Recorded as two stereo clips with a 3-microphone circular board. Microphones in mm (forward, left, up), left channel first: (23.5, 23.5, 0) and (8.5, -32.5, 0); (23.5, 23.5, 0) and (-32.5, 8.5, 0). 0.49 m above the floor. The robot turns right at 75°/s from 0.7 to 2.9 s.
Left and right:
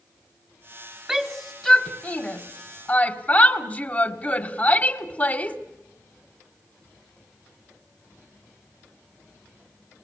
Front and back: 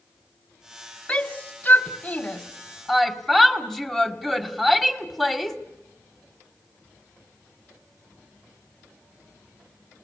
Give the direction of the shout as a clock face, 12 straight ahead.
1 o'clock.